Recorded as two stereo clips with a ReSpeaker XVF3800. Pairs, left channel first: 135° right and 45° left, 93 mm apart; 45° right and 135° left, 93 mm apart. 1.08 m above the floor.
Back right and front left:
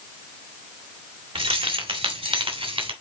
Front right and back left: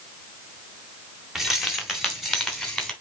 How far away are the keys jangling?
About 2.0 m.